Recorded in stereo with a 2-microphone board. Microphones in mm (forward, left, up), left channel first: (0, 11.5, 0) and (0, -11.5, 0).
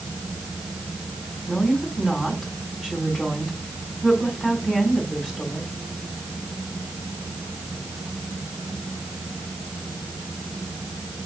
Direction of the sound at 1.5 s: 10° right (ahead or behind).